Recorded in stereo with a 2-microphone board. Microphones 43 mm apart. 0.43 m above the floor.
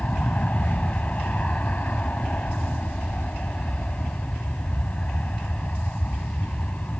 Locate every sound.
0.0 s an aircraft: 35° left (ahead or behind)